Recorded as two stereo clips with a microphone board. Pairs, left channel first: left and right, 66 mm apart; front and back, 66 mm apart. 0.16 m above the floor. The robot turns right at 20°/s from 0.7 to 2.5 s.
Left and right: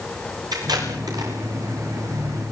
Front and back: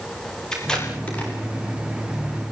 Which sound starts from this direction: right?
Tape being pulled, at 0.5 s.